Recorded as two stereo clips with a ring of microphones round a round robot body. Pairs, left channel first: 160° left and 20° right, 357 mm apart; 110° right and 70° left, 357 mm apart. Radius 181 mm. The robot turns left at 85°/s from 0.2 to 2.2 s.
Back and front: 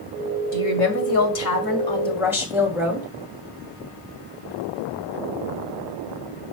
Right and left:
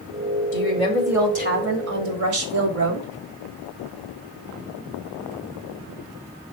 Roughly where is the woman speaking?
Behind right.